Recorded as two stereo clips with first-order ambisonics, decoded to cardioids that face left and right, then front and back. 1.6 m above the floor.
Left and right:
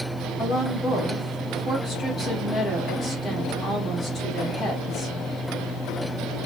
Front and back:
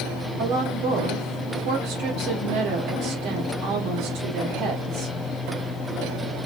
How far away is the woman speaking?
About 1.4 m.